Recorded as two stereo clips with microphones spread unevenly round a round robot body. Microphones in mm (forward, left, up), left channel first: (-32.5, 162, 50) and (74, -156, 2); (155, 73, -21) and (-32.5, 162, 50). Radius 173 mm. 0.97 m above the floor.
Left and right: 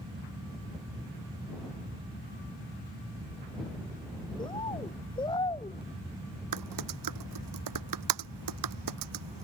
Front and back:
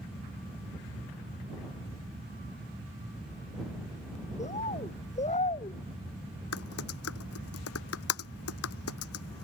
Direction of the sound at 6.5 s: 40° right.